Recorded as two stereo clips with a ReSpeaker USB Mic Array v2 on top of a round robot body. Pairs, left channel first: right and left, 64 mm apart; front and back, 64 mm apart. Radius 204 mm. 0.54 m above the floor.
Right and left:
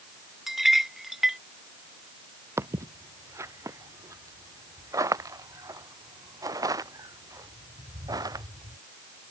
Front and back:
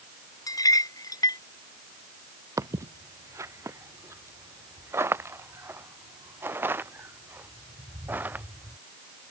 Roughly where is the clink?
Ahead.